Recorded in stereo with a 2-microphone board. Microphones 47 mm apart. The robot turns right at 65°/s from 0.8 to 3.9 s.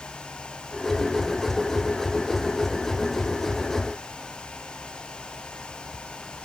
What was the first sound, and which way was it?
Only background noise.